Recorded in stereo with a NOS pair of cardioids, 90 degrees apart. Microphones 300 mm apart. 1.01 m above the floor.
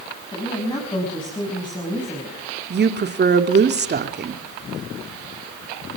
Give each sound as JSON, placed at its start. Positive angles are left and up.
{"t": 0.3, "sound": "a woman speaking", "azimuth_deg": 15, "distance_m": 6.5}
{"t": 2.7, "sound": "a woman speaking", "azimuth_deg": -35, "distance_m": 2.5}